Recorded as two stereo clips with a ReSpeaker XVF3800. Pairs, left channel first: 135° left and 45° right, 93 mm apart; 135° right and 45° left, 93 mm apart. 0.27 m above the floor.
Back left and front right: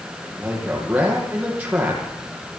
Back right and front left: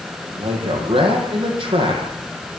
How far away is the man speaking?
About 8.5 m.